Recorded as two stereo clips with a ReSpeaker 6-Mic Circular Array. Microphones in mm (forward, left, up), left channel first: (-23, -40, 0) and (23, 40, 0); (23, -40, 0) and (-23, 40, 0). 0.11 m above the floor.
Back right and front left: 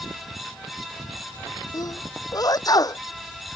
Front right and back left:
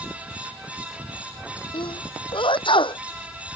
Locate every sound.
1.7 s a sneeze: 75° right